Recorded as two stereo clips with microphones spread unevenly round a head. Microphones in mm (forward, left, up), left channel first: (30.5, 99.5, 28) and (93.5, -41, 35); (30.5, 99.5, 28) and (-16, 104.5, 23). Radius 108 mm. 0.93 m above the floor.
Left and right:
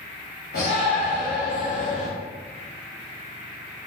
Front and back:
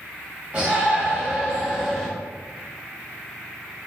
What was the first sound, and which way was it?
A shout, 120° left.